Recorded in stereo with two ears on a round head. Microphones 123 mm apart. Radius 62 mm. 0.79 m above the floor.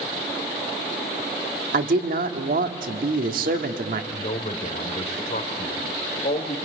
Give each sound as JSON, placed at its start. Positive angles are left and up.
{"t": 1.7, "sound": "a man speaking", "side_deg": -70, "distance_m": 1.6}
{"t": 4.1, "sound": "a man speaking", "side_deg": 55, "distance_m": 3.0}